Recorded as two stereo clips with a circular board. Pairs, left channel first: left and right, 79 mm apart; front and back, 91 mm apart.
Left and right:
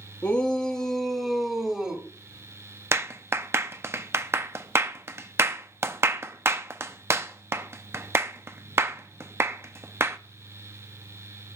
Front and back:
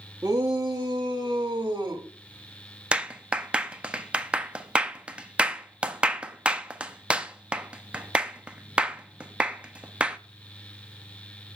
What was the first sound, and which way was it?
A shout, 135° left.